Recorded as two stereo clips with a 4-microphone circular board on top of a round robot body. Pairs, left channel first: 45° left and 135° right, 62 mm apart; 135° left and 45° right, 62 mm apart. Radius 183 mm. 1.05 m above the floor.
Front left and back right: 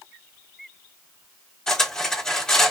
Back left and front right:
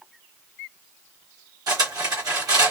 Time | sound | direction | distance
1.7 | cutlery clinking | 35° right | 1.1 m